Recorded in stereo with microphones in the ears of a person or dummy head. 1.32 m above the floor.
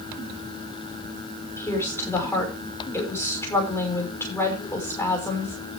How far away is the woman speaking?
About 5 m.